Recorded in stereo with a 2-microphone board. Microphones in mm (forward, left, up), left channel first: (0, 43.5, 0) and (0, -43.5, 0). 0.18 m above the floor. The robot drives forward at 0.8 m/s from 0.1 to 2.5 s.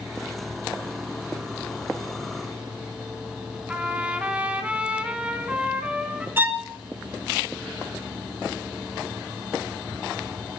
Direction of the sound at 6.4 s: 20° right (ahead or behind).